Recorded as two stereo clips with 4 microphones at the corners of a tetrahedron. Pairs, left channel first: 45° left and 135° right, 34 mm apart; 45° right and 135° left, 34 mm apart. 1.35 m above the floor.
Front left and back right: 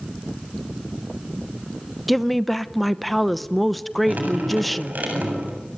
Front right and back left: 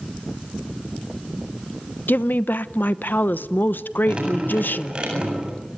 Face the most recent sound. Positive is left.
turn(degrees=-165)